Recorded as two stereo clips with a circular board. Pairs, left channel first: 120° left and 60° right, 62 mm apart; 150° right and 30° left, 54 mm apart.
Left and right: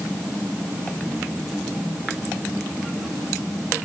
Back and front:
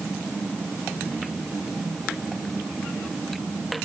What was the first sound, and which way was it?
Only background noise.